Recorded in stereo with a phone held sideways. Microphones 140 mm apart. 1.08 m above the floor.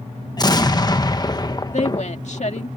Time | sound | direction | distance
0.4 | an explosion | 30° left (ahead or behind) | ?
1.7 | a woman speaking | 55° left (ahead or behind) | ?